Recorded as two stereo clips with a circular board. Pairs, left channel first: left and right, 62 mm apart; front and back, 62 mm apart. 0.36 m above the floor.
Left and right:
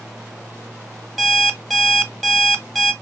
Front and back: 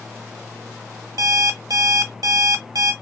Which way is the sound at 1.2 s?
175° left.